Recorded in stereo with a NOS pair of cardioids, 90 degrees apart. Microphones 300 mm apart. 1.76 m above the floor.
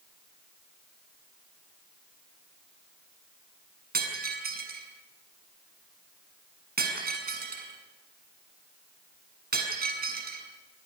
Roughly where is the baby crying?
No baby crying in this recording.